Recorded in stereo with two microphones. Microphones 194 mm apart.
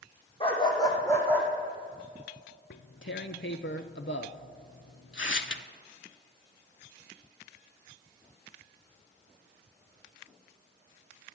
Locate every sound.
0.4 s a dog barking: 30° left (ahead or behind), 2.5 m; by 1.5 s 10° left (ahead or behind), 2.5 m
2.7 s tearing paper: 80° left, 0.5 m